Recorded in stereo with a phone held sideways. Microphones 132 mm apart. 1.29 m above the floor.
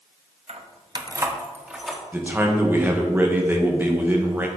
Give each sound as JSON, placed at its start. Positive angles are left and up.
{"t": 0.5, "sound": "keys jangling", "side_deg": -55, "distance_m": 0.9}
{"t": 2.1, "sound": "a man speaking", "side_deg": -15, "distance_m": 1.6}